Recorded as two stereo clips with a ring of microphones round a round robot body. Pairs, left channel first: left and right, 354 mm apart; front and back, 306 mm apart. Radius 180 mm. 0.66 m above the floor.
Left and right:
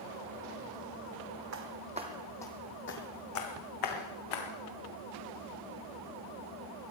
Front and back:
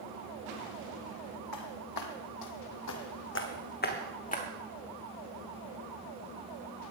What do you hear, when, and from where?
1.5 s footsteps: 40° right, 1.7 m; by 4.5 s 65° left, 3 m